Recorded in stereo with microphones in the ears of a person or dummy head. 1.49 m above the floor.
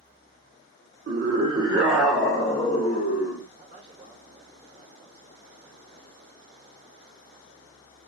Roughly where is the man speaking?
Right.